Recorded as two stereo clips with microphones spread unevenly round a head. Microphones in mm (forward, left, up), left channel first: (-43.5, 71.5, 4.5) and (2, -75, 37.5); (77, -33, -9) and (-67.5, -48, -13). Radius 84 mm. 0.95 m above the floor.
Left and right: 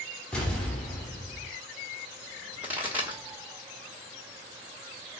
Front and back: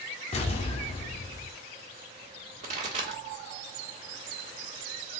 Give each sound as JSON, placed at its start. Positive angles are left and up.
{"t": 0.3, "sound": "an explosion", "azimuth_deg": 10, "distance_m": 0.6}
{"t": 2.6, "sound": "a pop", "azimuth_deg": -160, "distance_m": 1.3}